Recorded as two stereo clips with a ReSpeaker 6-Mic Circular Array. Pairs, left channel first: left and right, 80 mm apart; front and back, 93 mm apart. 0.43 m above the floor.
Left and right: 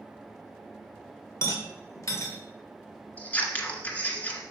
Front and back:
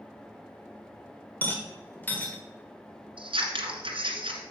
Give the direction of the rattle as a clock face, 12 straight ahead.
10 o'clock.